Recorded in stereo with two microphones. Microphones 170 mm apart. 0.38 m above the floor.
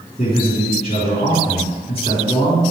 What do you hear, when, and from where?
0.2 s a man speaking: 35° left (ahead or behind), 4 m